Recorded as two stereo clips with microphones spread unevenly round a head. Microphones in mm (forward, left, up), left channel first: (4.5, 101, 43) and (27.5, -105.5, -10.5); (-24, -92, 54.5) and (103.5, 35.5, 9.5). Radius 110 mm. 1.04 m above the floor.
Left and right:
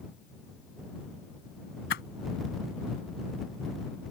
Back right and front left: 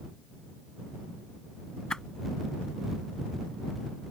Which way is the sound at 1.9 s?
140° left.